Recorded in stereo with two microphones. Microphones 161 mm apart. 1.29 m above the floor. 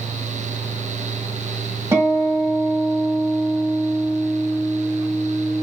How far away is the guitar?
About 1.3 m.